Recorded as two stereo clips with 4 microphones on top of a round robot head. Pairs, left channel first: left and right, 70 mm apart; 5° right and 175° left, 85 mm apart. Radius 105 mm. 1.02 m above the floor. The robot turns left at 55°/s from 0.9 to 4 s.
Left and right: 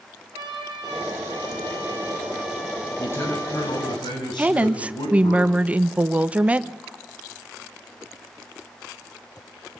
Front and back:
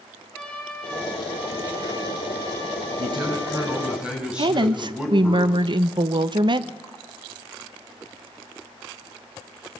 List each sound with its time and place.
0.3 s a trumpet: 85° right, 4 m; by 4.0 s 105° left, 4 m
3.0 s a man speaking: 155° left, 7 m; by 5.4 s 95° left, 7 m
4.4 s a woman speaking: 160° right, 1.0 m